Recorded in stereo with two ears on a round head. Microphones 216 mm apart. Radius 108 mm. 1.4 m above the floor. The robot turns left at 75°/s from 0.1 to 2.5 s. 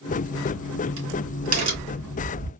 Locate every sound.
0.1 s a crack: 30° right (ahead or behind), 3 m; by 2.5 s 30° left (ahead or behind), 3 m